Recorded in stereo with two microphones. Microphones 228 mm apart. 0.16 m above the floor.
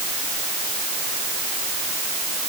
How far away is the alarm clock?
I don't hear an alarm clock.